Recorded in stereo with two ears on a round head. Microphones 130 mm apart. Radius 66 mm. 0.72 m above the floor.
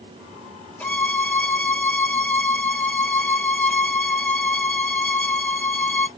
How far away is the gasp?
No gasp in this recording.